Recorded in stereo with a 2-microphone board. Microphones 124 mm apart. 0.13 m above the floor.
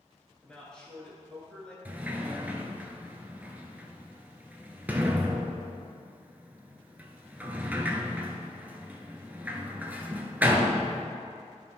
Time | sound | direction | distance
0.4 | a man speaking | 5° left (ahead or behind) | 2.5 m
1.9 | a sliding door | 15° right (ahead or behind) | 0.9 m